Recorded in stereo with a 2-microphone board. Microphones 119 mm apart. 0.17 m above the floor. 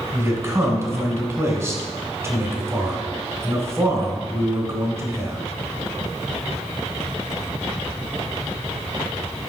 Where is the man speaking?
25° right (ahead or behind), 1.6 m.